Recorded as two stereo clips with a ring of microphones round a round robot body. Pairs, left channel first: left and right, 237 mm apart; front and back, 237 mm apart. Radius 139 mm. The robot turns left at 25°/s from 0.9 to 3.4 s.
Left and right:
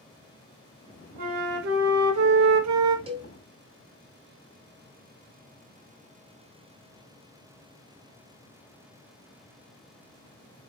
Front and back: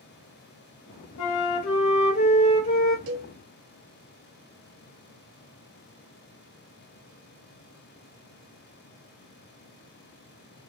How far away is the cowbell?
About 0.6 m.